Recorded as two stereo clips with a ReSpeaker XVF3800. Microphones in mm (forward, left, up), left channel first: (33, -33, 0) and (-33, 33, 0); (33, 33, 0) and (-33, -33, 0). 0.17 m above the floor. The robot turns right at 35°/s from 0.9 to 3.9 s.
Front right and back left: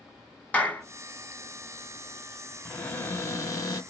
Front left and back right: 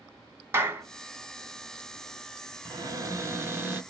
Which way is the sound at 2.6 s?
115° right.